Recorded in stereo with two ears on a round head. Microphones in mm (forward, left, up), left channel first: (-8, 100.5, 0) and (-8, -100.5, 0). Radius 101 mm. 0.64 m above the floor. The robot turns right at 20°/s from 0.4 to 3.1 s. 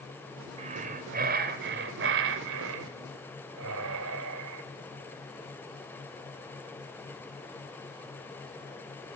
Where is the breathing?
145° right, 3 m; by 4.6 s 95° right, 3 m.